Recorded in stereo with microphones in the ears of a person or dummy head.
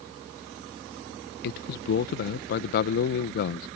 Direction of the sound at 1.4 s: 55° left (ahead or behind).